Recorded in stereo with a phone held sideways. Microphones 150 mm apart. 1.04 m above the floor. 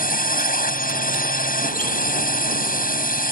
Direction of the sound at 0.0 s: 70° left (ahead or behind).